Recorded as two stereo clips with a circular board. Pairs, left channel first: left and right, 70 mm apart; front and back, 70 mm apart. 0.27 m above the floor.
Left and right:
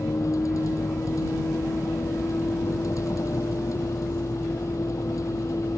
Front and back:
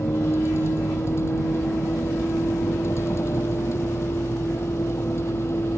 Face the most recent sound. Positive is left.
turn(degrees=50)